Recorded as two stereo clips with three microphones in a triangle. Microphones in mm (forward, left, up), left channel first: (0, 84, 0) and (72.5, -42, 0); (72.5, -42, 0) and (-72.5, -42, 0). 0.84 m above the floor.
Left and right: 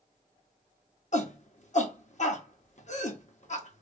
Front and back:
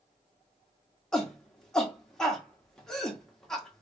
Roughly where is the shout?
Left.